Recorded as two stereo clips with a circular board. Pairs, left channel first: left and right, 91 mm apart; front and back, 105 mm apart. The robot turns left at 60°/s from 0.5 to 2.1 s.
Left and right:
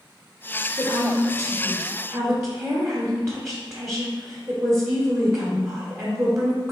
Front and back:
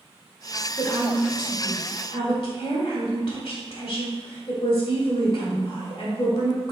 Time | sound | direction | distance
0.8 | a woman speaking | 45° left | 1.7 m